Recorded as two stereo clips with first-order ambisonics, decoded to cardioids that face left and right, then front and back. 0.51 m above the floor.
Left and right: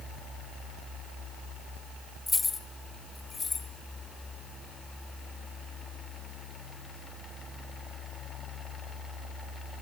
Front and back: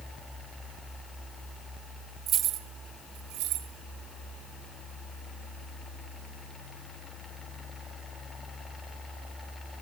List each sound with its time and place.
2.3 s keys jangling: 160° left, 0.7 m